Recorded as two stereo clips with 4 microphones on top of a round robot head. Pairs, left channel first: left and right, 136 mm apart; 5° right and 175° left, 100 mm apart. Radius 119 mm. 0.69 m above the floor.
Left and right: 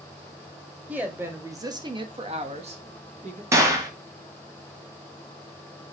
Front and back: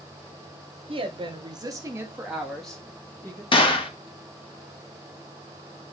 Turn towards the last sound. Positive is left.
turn(degrees=-25)